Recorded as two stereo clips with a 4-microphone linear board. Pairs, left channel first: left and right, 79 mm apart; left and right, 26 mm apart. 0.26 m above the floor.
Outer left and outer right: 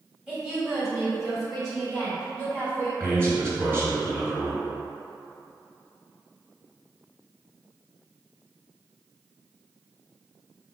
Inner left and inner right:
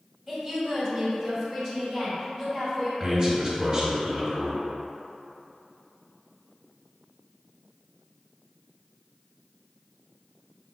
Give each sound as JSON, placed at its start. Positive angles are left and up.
{"t": 0.3, "sound": "a woman speaking", "side_deg": -10, "distance_m": 1.7}
{"t": 3.0, "sound": "a man speaking", "side_deg": -30, "distance_m": 1.7}